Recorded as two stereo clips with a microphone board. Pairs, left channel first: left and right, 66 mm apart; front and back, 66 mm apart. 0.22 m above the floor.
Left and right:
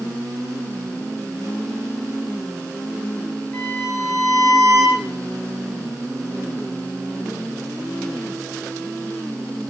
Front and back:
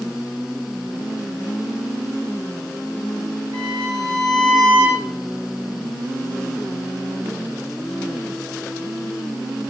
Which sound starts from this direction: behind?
A violin, at 3.5 s.